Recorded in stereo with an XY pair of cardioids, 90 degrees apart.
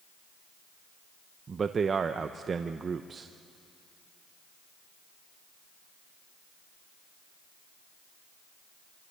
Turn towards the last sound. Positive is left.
turn(degrees=-50)